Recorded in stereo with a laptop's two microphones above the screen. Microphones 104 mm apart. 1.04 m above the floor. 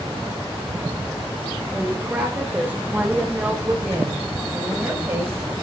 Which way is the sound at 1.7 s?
15° right (ahead or behind).